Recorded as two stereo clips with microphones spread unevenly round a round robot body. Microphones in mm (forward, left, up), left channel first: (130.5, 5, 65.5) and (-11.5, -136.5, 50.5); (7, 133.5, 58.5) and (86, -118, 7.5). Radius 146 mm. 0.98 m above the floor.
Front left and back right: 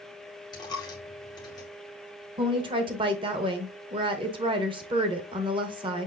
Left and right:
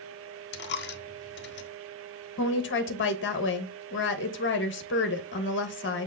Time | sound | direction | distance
0.5 | a dropped coin | 110° left | 0.7 m
2.4 | a woman speaking | 160° left | 1.0 m